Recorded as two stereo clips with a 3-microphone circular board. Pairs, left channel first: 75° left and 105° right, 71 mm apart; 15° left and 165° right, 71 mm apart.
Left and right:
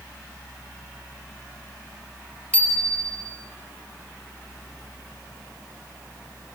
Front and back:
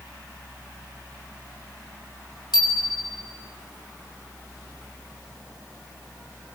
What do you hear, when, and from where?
2.5 s a bicycle bell: 5° left, 5.5 m